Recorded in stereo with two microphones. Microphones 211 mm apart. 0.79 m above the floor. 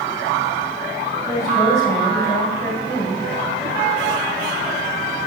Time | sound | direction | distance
1.3 | a woman speaking | 10° left (ahead or behind) | 4.5 m